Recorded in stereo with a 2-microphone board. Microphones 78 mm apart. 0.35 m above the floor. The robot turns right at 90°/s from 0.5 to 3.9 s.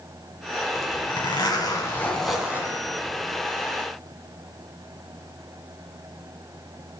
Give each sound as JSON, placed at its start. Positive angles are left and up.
{"t": 0.8, "sound": "a zipper", "azimuth_deg": 40, "distance_m": 2.5}